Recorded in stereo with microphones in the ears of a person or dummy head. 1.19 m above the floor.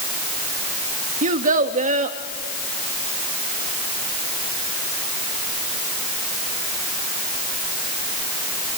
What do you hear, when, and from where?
1.2 s a child speaking: 40° right (ahead or behind), 1.0 m